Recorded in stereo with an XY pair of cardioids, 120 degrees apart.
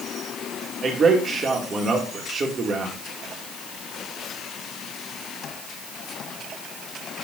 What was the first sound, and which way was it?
A man speaking, 35° right.